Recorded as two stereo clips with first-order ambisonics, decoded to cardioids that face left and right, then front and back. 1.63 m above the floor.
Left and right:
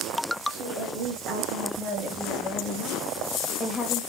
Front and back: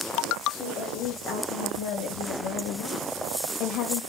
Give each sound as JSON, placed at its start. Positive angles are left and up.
{"t": 0.5, "sound": "a woman speaking", "azimuth_deg": -45, "distance_m": 1.9}